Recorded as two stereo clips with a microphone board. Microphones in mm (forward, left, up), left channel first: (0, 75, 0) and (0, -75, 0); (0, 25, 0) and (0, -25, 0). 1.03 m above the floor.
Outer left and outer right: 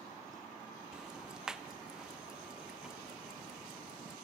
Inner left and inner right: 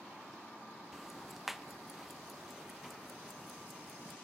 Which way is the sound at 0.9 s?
5° right (ahead or behind).